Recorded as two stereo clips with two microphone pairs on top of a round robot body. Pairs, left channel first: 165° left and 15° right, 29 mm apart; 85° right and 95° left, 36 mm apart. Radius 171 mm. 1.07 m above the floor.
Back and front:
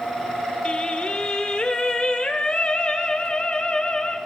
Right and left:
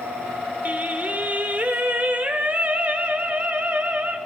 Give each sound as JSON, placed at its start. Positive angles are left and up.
{"t": 0.7, "sound": "singing", "azimuth_deg": 115, "distance_m": 1.0}